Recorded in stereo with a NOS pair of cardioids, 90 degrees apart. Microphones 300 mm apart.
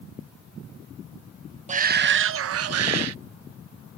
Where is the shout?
25° right; by 3.2 s 60° right.